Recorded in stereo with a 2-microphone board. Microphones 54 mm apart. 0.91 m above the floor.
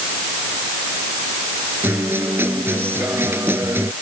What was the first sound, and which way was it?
A guitar, 50° right (ahead or behind).